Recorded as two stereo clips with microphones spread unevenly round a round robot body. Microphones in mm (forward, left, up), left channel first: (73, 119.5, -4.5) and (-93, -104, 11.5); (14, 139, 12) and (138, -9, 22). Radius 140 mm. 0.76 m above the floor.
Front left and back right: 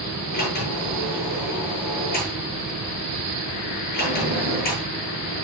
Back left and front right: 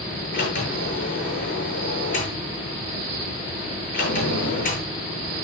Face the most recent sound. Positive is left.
turn(degrees=110)